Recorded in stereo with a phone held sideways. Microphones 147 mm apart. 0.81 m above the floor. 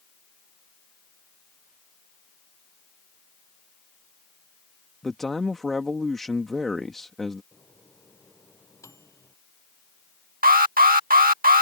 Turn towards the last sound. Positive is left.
turn(degrees=-75)  # may be behind; listen again after turning